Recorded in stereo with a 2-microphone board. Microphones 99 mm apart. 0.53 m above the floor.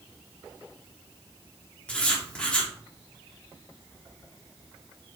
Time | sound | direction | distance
1.9 | writing | 10° left (ahead or behind) | 1.2 m